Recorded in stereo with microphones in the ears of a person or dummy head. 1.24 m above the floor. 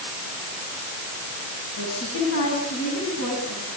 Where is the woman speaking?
85° left, 9.5 m.